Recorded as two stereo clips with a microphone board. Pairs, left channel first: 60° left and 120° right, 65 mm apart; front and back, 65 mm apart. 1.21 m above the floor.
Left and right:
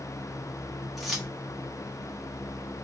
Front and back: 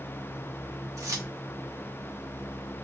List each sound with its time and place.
1.0 s keys jangling: 150° left, 0.8 m